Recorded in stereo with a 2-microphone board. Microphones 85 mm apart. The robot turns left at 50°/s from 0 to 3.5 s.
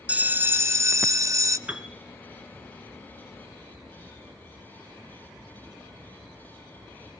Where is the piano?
15° right (ahead or behind), 1.7 m; by 2.0 s centre (ahead or behind), 1.7 m.